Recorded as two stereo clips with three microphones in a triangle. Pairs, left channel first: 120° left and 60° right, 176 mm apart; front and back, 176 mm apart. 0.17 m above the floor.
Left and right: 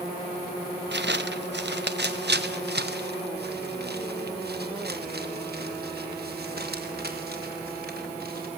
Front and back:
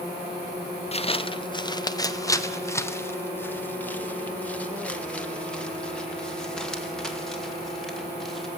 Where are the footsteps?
55° right, 1.1 m; by 8.5 s 90° right, 5 m.